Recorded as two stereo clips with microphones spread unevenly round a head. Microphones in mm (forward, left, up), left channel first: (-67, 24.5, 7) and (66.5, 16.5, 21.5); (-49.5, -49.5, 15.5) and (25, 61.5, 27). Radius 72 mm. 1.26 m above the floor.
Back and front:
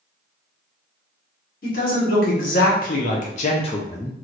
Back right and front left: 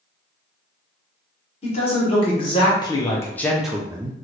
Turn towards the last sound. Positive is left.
turn(degrees=105)